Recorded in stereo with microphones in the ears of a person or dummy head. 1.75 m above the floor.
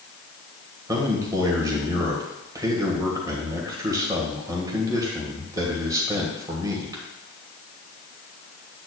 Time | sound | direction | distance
0.9 | a man speaking | 20° right (ahead or behind) | 1.6 m